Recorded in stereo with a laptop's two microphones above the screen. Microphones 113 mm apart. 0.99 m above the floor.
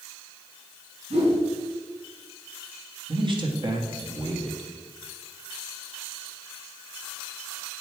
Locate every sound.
1.1 s a whoosh: 65° right (ahead or behind), 3.5 m
3.1 s a man speaking: 45° right (ahead or behind), 1.5 m